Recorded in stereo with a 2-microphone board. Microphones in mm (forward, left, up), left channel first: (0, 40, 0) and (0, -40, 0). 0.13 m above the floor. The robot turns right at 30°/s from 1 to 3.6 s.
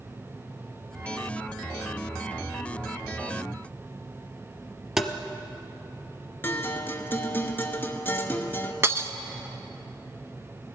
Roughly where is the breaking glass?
Right.